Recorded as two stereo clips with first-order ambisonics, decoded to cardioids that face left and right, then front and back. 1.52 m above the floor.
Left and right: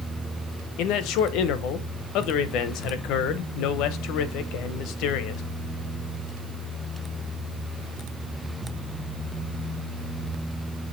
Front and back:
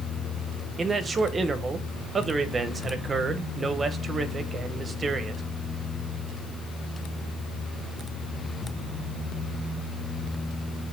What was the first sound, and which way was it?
A man speaking, 110° left.